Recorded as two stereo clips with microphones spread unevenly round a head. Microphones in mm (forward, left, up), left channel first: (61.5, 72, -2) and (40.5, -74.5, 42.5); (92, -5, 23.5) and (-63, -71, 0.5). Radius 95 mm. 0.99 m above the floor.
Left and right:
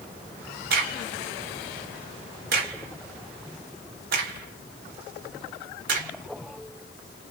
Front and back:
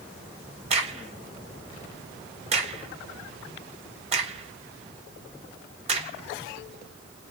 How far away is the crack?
About 0.9 m.